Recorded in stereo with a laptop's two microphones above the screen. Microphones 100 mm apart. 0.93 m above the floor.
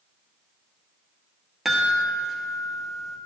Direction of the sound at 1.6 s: Centre (ahead or behind).